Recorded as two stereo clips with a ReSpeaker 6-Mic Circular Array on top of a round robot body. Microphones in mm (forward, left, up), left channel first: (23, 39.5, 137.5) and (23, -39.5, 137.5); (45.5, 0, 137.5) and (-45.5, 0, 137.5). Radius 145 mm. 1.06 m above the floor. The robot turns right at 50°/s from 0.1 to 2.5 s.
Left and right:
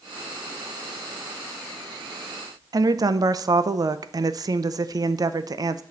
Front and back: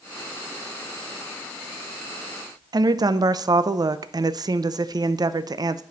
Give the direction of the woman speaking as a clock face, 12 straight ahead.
4 o'clock.